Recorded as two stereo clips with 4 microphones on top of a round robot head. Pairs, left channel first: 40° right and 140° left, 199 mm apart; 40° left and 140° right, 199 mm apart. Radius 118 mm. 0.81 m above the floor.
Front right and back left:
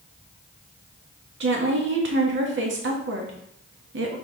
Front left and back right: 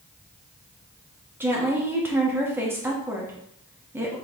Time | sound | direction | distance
1.4 | a woman speaking | 145° left | 1.4 m